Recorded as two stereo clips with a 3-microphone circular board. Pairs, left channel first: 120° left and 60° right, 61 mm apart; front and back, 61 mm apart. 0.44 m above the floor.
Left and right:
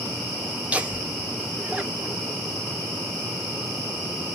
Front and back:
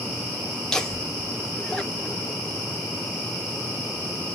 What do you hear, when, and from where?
0.7 s laughter: 60° right, 0.8 m